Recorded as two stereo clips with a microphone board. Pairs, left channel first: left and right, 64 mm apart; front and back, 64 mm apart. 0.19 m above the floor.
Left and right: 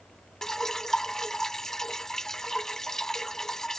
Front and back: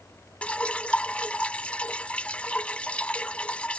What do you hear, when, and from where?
0.4 s dripping: 25° left